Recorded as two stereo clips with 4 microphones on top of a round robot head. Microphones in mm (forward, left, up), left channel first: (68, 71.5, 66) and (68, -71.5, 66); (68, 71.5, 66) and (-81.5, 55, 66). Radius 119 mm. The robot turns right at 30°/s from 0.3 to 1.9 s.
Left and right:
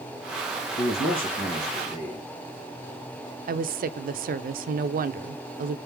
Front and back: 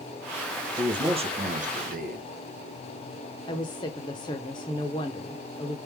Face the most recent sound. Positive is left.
turn(degrees=-65)